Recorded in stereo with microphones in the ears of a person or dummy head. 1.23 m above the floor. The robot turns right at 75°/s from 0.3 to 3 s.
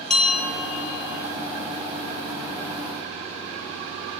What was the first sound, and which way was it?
A bell, 5° left.